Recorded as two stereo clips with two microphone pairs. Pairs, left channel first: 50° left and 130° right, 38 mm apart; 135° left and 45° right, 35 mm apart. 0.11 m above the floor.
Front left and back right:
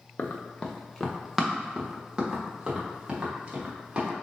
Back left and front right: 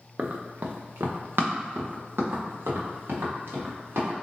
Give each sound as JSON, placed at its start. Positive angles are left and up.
{"t": 0.2, "sound": "running footsteps", "azimuth_deg": 0, "distance_m": 0.7}